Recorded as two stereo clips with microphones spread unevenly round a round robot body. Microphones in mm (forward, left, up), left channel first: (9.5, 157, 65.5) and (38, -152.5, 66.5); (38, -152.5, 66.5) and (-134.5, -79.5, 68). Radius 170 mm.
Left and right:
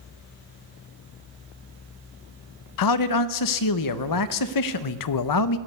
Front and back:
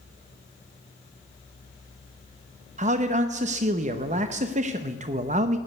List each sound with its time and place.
2.8 s a man speaking: 105° left, 0.7 m